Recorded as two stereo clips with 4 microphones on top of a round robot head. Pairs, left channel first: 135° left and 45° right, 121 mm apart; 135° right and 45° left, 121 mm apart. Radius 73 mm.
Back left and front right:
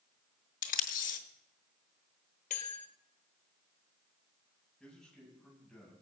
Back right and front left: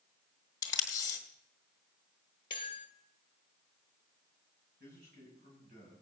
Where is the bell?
170° left, 1.1 m.